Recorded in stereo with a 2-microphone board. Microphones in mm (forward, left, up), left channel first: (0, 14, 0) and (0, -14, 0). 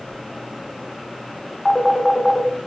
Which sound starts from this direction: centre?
A phone ringing, at 1.6 s.